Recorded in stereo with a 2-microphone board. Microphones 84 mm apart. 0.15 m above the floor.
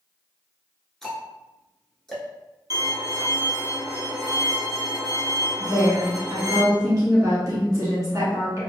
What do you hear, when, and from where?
1.0 s ticking: 5° left (ahead or behind), 0.9 m
2.7 s a violin: 50° right (ahead or behind), 1.0 m
5.6 s a woman speaking: 40° right (ahead or behind), 1.3 m